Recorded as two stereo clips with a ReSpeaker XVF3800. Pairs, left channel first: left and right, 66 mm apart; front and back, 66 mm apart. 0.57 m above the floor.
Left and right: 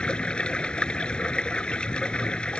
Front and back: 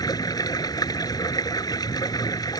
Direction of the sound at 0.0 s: 15° left.